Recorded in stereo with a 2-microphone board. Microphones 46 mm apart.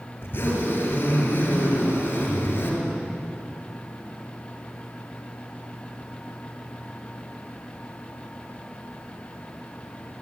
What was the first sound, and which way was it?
A zipper, 50° left (ahead or behind).